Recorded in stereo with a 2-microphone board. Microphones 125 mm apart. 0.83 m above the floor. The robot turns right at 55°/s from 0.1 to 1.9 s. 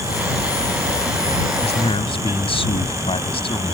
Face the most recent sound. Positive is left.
turn(degrees=50)  # may be behind; listen again after turning